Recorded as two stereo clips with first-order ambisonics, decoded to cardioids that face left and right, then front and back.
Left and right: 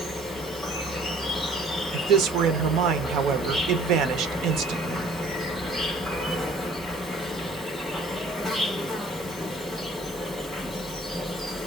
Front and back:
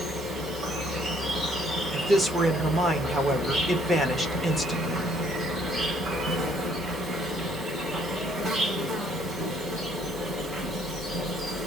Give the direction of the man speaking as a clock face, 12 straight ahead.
3 o'clock.